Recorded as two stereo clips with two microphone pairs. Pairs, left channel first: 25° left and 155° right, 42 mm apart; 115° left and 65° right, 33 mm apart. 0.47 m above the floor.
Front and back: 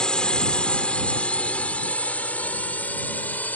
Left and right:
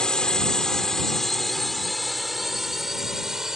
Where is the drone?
75° left; by 3.6 s 5° left.